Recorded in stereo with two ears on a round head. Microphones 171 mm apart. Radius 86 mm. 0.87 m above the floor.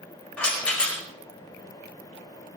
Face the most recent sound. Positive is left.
turn(degrees=5)  # may be behind; listen again after turning